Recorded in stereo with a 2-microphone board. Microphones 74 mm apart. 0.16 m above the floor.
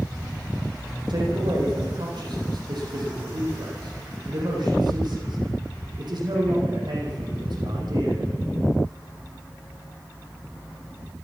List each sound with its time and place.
1.1 s a man speaking: 70° right (ahead or behind), 8 m